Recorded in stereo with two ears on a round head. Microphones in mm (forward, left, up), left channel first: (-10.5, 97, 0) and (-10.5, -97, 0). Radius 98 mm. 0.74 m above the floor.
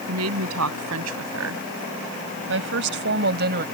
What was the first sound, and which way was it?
A woman speaking, 85° right.